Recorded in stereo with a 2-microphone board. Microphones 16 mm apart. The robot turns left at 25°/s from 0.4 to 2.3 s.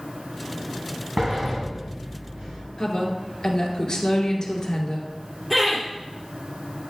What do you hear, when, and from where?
1.2 s a sliding door: 40° right (ahead or behind), 3.5 m; by 2.6 s 70° right (ahead or behind), 3.5 m
2.8 s a woman speaking: 50° left (ahead or behind), 1.9 m
5.5 s laughter: 10° right (ahead or behind), 2.5 m